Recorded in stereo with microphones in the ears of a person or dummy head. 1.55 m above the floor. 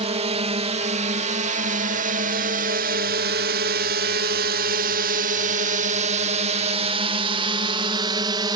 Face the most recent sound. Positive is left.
turn(degrees=-25)  # may be behind; listen again after turning